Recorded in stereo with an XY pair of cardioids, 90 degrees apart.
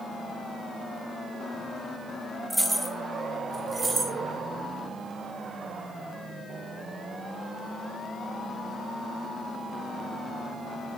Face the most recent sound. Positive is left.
turn(degrees=-40)